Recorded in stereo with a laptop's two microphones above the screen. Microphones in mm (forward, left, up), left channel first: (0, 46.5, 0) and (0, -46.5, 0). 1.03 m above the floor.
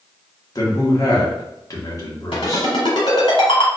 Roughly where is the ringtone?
Left.